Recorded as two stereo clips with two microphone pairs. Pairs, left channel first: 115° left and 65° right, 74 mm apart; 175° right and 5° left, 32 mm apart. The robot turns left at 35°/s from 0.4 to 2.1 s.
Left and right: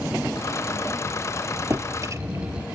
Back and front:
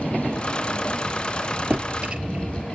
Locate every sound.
1.7 s a drawer: 20° right, 1.0 m; by 2.7 s 35° right, 1.0 m